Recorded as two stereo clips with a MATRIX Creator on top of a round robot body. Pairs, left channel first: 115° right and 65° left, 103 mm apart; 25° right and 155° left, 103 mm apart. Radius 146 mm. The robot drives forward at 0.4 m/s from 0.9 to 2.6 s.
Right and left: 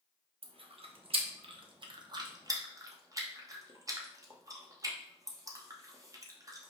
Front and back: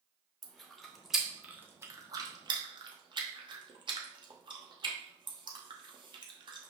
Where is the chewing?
65° left, 0.8 m; by 6.7 s 120° left, 0.9 m.